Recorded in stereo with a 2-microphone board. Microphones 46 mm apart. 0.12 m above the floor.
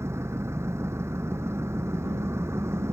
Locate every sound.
0.0 s an engine running: 75° right (ahead or behind)